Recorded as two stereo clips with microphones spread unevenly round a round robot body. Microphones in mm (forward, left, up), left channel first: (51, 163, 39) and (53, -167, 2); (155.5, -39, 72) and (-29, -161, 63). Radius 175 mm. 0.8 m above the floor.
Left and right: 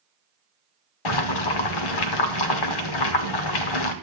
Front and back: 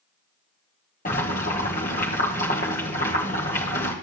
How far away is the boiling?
About 1.0 m.